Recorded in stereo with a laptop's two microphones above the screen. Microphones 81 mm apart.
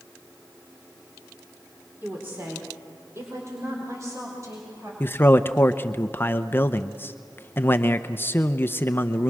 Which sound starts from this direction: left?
A man speaking, at 5.0 s.